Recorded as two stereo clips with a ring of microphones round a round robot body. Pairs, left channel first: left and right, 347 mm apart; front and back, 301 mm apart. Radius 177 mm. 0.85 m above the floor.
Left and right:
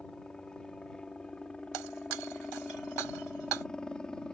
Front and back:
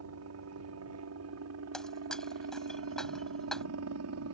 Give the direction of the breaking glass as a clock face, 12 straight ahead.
3 o'clock.